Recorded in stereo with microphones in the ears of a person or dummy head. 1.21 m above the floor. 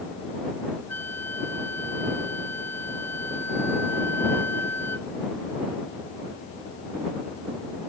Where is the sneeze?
No sneeze in this recording.